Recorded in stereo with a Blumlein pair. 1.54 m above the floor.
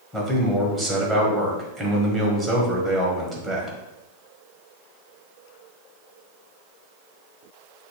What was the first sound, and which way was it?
A man speaking, 15° right.